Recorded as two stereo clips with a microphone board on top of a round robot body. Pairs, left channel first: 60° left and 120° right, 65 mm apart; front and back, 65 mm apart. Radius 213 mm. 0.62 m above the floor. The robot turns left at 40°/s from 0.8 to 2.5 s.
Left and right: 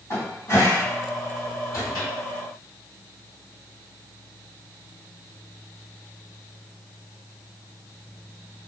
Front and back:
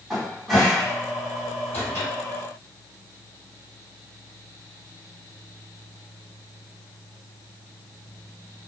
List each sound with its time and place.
0.1 s a cupboard door: 90° left, 1.9 m; by 2.1 s 40° left, 1.9 m